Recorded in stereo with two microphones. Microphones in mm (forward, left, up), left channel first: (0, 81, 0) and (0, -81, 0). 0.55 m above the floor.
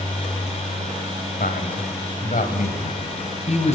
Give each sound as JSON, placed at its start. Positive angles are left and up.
{"t": 1.4, "sound": "a man speaking", "side_deg": 70, "distance_m": 2.5}